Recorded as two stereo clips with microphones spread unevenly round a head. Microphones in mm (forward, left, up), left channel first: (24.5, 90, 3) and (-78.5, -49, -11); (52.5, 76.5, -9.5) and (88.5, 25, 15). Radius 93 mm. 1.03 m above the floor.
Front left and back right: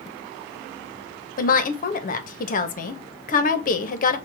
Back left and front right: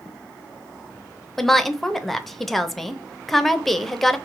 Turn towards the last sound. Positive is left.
turn(degrees=65)